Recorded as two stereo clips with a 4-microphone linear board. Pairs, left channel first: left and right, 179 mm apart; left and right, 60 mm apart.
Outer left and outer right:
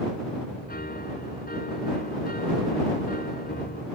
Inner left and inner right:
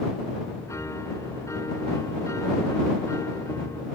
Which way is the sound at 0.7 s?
65° left (ahead or behind).